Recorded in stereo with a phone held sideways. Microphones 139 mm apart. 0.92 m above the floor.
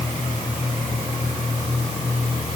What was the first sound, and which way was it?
Only background noise.